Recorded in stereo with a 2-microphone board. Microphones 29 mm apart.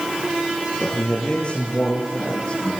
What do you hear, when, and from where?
0.8 s a man speaking: 30° left (ahead or behind), 6 m; by 2.7 s 35° left (ahead or behind), 8.5 m